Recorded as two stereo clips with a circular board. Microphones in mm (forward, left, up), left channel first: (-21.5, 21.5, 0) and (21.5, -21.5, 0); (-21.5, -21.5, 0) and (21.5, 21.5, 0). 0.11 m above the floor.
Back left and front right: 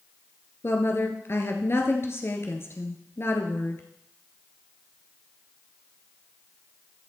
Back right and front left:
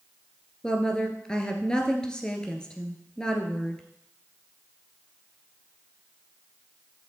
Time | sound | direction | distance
0.6 | a woman speaking | 155° left | 1.8 m